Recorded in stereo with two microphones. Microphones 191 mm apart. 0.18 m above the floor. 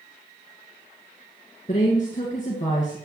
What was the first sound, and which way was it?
A woman speaking, 45° left (ahead or behind).